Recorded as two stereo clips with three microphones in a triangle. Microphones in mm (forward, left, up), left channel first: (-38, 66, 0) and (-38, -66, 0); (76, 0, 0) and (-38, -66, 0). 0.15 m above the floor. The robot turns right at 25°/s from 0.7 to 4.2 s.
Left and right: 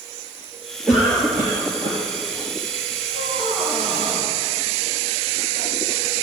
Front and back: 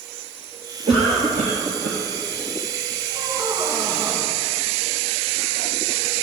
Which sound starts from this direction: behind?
A cough, at 0.9 s.